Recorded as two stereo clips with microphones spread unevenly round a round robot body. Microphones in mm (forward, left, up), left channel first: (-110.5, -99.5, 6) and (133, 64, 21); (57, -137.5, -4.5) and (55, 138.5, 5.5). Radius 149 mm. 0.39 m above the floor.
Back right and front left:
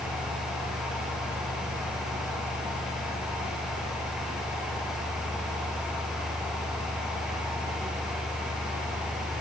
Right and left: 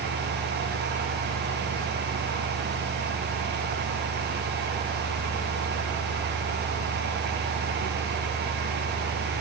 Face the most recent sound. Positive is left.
No sound to turn to.